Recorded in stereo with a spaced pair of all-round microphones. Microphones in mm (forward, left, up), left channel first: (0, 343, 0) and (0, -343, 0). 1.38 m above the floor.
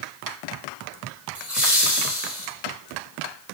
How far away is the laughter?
About 4.5 m.